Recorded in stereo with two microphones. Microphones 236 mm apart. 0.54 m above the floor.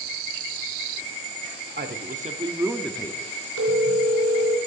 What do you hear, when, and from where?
1.8 s a man speaking: 45° right (ahead or behind), 1.0 m; by 3.3 s 30° left (ahead or behind), 0.7 m
3.6 s a phone ringing: 75° right (ahead or behind), 3 m